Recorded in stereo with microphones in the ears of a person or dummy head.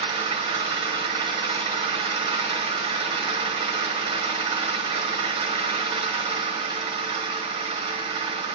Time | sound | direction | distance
0.0 | an engine running | 35° right (ahead or behind) | 1.6 m